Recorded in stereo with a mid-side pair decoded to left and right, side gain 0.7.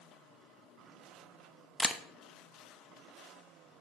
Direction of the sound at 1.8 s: 5° left.